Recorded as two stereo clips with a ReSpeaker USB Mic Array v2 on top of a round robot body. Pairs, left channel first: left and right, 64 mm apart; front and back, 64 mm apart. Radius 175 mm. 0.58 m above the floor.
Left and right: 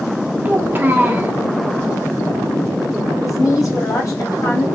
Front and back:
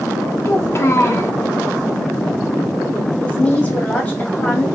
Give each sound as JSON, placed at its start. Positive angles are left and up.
{"t": 0.5, "sound": "a child speaking", "azimuth_deg": -35, "distance_m": 0.8}
{"t": 3.2, "sound": "a woman speaking", "azimuth_deg": 65, "distance_m": 1.8}